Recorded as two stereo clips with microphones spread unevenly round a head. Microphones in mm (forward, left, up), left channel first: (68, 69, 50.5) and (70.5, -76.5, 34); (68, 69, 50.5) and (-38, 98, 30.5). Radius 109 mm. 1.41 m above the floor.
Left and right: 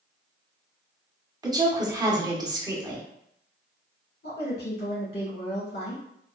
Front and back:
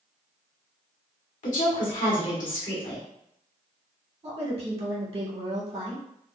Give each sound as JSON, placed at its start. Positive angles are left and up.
{"t": 1.4, "sound": "a woman speaking", "azimuth_deg": -25, "distance_m": 1.2}
{"t": 4.2, "sound": "a woman speaking", "azimuth_deg": 135, "distance_m": 1.7}